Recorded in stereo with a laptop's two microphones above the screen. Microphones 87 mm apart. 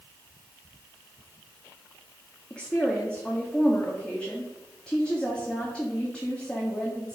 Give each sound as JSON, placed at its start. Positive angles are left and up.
{"t": 2.5, "sound": "a woman speaking", "side_deg": 10, "distance_m": 1.8}